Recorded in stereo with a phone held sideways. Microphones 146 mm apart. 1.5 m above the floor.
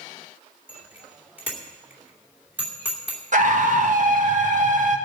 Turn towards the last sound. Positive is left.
turn(degrees=-60)  # may be behind; listen again after turning